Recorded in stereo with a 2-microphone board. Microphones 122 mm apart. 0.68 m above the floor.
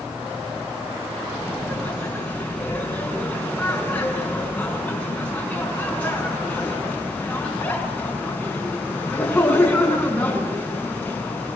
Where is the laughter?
10° left (ahead or behind), 7.5 m.